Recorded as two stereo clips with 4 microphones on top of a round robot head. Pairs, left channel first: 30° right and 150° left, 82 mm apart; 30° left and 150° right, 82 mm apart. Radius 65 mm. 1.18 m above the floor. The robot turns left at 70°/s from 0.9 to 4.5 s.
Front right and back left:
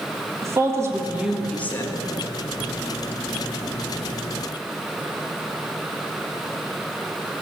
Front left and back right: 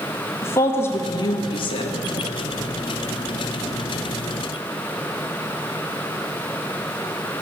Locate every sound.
0.4 s a woman speaking: 90° left, 1.7 m; by 2.0 s 10° left, 1.7 m